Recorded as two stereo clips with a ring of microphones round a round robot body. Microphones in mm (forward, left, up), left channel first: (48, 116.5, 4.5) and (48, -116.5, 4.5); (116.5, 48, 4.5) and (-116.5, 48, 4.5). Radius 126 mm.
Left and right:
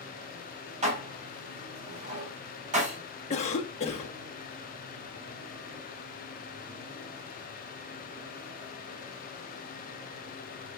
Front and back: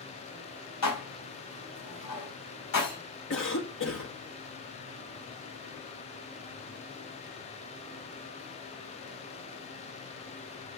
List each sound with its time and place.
0.8 s dishes clattering: 30° right, 3.5 m
3.3 s a cough: 30° left, 1.4 m